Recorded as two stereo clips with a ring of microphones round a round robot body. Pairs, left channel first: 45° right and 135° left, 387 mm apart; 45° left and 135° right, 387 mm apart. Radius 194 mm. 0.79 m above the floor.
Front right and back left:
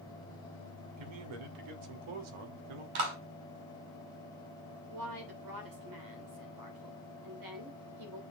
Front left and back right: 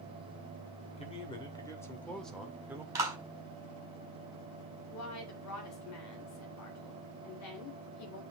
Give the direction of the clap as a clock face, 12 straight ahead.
7 o'clock.